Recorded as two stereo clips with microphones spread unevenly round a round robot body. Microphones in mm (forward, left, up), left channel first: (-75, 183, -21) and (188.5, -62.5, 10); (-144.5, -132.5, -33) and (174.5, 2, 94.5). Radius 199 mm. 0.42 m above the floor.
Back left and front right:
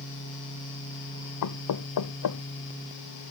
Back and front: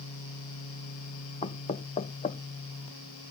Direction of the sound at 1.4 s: 150° left.